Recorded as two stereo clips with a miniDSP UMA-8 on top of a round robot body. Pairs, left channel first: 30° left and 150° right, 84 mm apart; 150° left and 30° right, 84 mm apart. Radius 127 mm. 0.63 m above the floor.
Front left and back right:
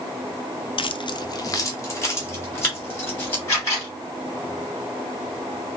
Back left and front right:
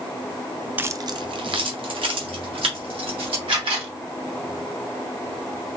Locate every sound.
0.8 s keys jangling: 40° left, 0.5 m; by 3.4 s 35° right, 3.5 m
3.5 s a camera shutter: 25° right, 3.5 m